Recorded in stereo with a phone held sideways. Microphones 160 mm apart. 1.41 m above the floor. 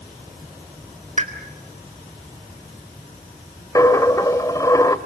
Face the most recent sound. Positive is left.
turn(degrees=20)  # may be behind; listen again after turning